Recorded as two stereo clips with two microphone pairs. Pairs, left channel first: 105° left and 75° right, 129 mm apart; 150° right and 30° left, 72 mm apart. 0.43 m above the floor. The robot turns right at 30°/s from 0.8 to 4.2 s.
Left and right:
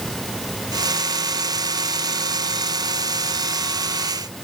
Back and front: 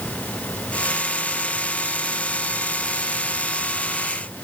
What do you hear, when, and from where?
Only background noise.